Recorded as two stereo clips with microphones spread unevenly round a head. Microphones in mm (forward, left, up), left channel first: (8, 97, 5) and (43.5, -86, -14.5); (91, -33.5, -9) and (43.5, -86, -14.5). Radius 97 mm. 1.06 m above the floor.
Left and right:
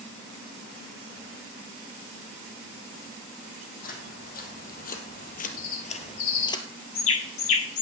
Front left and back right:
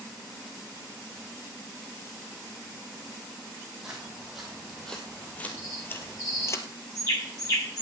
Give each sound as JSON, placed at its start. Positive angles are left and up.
{"t": 3.8, "sound": "footsteps", "azimuth_deg": 140, "distance_m": 2.5}
{"t": 5.6, "sound": "a bird", "azimuth_deg": 110, "distance_m": 1.5}